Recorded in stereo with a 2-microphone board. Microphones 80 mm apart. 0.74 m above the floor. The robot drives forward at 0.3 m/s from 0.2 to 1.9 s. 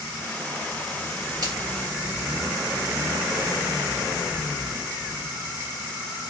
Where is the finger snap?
55° right (ahead or behind), 1.8 m.